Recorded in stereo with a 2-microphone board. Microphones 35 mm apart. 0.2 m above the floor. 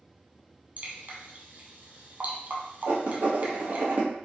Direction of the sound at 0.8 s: 55° right (ahead or behind).